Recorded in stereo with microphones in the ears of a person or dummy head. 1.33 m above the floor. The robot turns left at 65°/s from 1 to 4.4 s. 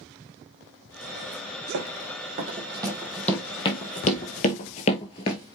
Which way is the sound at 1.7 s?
65° right (ahead or behind).